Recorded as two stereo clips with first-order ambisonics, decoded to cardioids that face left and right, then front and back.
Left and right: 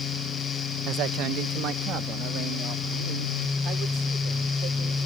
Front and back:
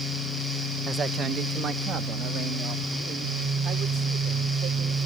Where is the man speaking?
115° right; by 5.1 s 130° right.